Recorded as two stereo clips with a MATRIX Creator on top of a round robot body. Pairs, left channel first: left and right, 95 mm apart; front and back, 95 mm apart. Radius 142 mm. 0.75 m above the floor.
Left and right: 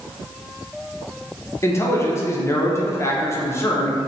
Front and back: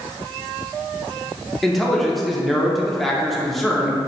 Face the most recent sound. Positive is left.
turn(degrees=85)